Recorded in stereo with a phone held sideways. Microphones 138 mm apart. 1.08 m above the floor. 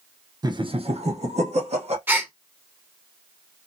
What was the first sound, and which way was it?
Laughter, 30° right (ahead or behind).